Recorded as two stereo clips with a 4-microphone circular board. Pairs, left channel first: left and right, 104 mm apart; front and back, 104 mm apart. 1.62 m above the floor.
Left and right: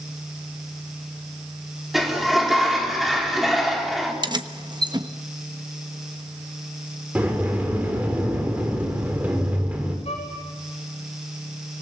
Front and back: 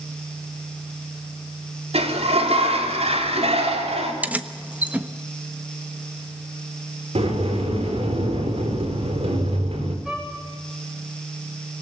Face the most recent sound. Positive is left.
turn(degrees=95)